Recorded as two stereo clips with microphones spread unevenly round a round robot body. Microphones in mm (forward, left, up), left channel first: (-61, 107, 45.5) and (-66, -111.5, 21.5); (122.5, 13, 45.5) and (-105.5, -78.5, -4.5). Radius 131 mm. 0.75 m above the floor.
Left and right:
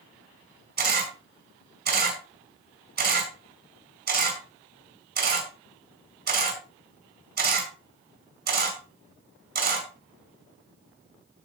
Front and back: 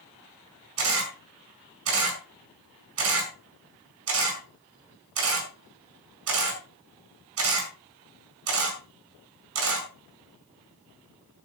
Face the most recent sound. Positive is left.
turn(degrees=-130)